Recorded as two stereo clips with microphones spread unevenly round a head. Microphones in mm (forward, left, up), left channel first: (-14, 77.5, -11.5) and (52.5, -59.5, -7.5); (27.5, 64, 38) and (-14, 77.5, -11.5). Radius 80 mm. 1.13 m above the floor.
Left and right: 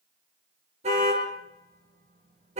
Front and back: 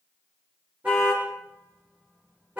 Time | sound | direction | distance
0.8 | a car horn | 115° right | 8.5 m